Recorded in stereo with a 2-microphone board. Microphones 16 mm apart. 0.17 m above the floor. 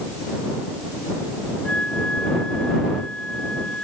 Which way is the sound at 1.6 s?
75° left (ahead or behind).